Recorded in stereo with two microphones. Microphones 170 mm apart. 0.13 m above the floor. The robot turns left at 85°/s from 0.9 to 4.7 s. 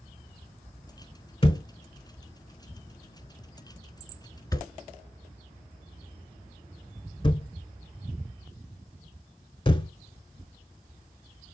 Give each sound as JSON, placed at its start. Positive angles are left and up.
{"t": 1.4, "sound": "a thud", "side_deg": 35, "distance_m": 0.6}